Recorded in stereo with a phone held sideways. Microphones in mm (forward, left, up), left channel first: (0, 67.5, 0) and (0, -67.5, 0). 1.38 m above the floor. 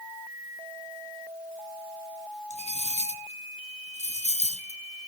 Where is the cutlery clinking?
50° left (ahead or behind), 1.3 m.